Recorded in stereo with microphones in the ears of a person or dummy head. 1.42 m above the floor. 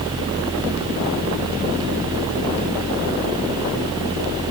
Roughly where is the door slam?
I don't hear a door slam.